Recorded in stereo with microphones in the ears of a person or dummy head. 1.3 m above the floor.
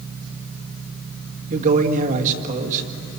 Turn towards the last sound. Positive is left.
turn(degrees=-40)  # may be behind; listen again after turning